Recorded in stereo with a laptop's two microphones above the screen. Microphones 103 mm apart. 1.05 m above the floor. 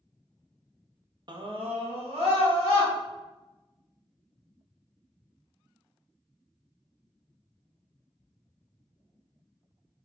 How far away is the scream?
About 0.6 m.